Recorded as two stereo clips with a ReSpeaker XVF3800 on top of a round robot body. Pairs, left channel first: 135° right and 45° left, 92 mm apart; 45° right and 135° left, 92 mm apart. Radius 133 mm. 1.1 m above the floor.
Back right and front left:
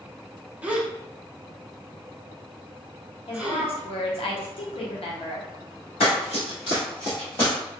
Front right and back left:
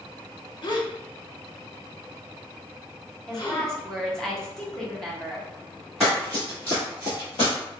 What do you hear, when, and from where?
0.6 s a gasp: 25° right, 0.8 m
3.3 s a woman speaking: 130° right, 0.9 m
6.0 s running footsteps: 140° right, 1.6 m; by 7.5 s 65° right, 1.6 m